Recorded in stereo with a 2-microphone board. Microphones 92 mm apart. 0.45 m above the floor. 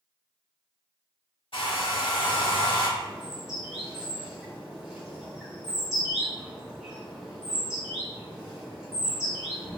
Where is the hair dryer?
75° left (ahead or behind), 1.1 m.